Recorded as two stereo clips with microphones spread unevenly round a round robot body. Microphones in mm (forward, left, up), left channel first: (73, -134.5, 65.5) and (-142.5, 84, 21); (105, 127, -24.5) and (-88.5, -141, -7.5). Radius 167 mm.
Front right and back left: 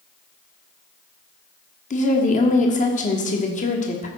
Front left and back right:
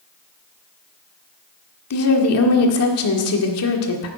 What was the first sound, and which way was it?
A woman speaking, 25° left.